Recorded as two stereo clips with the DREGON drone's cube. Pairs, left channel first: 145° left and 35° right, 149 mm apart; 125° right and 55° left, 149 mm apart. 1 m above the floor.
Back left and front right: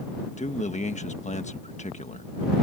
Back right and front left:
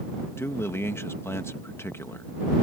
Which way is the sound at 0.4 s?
165° left.